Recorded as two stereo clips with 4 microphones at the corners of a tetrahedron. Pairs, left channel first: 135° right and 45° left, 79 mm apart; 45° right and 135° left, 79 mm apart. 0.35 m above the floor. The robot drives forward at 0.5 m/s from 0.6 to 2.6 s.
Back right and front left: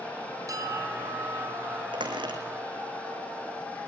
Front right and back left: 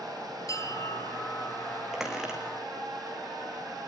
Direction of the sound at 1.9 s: 50° left.